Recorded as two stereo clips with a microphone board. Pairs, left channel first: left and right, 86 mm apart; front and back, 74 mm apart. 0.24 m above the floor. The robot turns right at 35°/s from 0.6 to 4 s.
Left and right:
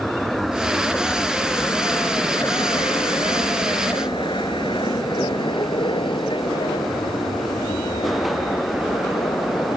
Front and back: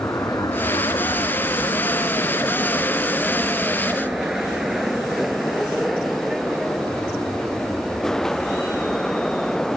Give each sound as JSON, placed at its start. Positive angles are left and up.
{"t": 0.0, "sound": "an aircraft", "azimuth_deg": 5}